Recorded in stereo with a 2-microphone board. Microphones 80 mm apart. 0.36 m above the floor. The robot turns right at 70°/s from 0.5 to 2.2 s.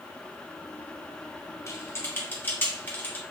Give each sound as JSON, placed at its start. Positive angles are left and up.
{"t": 1.7, "sound": "typing on a keyboard", "side_deg": 40, "distance_m": 1.2}